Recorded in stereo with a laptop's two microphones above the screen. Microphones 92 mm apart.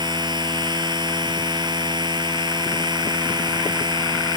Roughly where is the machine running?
Right.